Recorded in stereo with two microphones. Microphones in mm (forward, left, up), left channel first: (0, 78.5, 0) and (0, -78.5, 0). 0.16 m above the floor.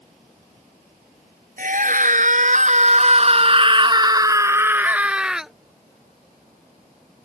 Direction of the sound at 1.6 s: 60° right (ahead or behind).